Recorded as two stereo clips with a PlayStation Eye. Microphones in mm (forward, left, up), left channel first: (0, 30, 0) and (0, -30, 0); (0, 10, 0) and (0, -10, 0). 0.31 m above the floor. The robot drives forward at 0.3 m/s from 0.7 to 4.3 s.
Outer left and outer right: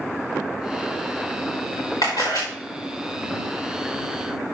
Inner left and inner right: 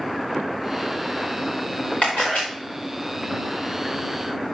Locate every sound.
2.0 s a camera shutter: 80° left, 5 m